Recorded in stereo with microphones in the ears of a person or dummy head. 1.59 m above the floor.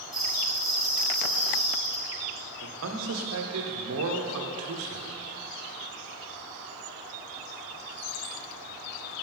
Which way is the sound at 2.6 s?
75° right (ahead or behind).